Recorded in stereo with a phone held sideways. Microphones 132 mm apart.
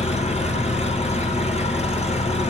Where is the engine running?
55° left (ahead or behind), 4.5 m.